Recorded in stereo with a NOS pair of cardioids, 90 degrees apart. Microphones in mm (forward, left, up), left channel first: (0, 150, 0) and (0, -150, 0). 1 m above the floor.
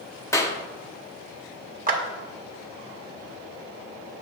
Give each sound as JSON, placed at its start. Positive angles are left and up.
{"t": 0.3, "sound": "a clap", "azimuth_deg": 10, "distance_m": 1.2}
{"t": 1.9, "sound": "a clap", "azimuth_deg": -30, "distance_m": 1.9}